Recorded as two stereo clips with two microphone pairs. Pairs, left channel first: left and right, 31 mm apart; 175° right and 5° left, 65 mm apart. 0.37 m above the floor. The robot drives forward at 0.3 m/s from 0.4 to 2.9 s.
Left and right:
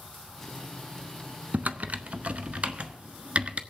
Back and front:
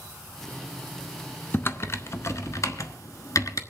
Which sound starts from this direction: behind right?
Typing on a keyboard, at 1.5 s.